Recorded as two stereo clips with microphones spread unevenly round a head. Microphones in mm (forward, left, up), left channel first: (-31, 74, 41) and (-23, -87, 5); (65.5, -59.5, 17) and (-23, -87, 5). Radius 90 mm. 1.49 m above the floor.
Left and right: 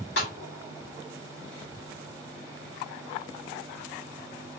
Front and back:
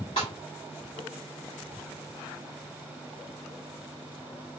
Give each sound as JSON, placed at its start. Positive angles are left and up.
{"t": 0.2, "sound": "a snare drum", "azimuth_deg": 65, "distance_m": 2.5}